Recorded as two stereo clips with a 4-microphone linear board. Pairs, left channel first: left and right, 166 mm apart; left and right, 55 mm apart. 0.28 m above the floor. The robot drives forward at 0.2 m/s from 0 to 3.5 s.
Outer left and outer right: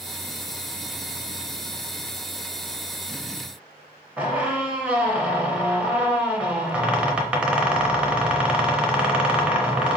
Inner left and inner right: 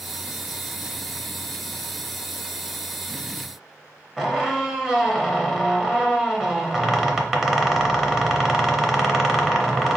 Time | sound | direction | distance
4.2 | a squeak | 5° right (ahead or behind) | 0.7 m